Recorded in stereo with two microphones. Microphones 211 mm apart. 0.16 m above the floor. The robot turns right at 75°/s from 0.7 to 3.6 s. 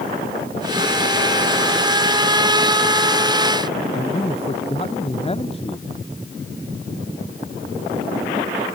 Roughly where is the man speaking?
Left.